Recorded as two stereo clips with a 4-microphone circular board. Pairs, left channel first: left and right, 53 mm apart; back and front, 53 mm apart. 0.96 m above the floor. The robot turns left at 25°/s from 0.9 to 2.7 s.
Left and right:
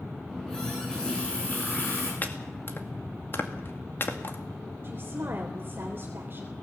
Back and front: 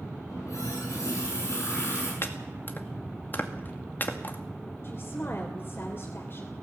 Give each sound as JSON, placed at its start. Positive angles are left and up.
{"t": 0.3, "sound": "a running tap", "azimuth_deg": 170, "distance_m": 8.0}
{"t": 2.2, "sound": "chopping", "azimuth_deg": 145, "distance_m": 2.0}
{"t": 4.8, "sound": "a woman speaking", "azimuth_deg": -135, "distance_m": 3.0}